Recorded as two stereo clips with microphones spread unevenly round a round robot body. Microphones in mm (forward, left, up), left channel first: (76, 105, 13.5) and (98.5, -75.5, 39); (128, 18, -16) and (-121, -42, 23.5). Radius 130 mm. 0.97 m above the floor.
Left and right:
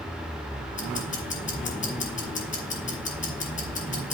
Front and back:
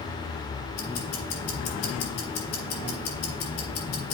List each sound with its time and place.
0.8 s ticking: 50° left, 3 m